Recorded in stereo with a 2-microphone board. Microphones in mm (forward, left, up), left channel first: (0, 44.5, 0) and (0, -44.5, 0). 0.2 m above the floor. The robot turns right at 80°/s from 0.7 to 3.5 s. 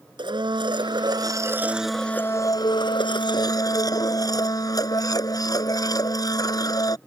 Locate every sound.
0.2 s a blender: 95° right; by 7.0 s 130° left